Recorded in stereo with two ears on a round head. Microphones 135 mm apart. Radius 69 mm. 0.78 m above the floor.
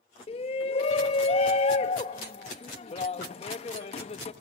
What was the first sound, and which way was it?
A shout, 40° left (ahead or behind).